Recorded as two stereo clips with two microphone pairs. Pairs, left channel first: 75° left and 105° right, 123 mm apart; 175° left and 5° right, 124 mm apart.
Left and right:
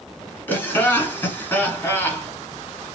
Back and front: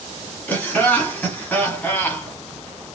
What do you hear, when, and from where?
0.5 s laughter: 120° left, 1.4 m